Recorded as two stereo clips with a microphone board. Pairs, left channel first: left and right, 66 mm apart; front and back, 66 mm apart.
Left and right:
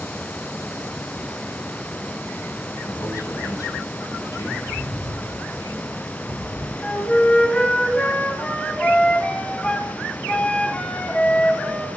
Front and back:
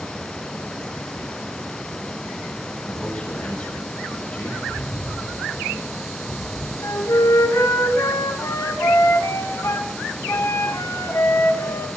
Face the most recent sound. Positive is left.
turn(degrees=20)